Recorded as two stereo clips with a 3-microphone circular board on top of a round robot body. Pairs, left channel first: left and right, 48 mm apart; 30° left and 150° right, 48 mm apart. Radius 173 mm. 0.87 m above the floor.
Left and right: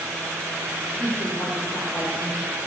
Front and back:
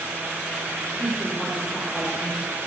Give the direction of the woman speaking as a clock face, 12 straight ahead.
9 o'clock.